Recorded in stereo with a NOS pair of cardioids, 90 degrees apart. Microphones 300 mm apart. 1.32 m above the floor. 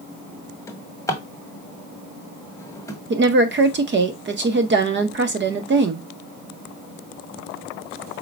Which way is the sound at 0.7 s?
10° left.